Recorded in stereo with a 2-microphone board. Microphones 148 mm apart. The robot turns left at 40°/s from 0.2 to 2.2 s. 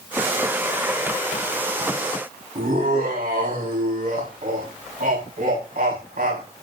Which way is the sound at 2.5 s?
80° right.